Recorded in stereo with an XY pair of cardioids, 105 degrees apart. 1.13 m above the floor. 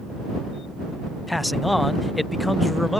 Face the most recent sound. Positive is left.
turn(degrees=10)